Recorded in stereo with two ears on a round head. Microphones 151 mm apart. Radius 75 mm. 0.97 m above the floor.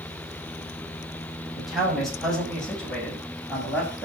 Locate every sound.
1.6 s a man speaking: centre (ahead or behind), 6.5 m; by 4.0 s 10° left (ahead or behind), 6.5 m